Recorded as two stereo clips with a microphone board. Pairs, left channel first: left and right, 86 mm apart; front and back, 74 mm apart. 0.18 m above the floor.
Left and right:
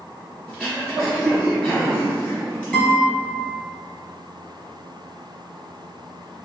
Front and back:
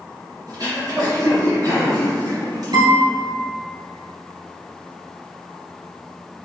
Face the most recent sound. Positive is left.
turn(degrees=170)